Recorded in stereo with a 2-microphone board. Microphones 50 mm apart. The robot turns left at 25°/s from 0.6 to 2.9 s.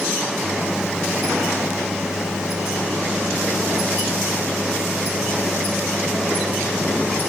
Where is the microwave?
150° left; by 7.3 s 90° left.